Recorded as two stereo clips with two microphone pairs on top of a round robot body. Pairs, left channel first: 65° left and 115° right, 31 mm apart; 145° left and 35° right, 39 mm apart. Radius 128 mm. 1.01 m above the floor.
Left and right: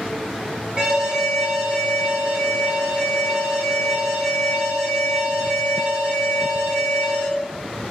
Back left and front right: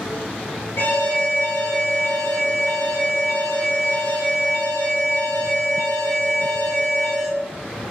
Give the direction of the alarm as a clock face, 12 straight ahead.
6 o'clock.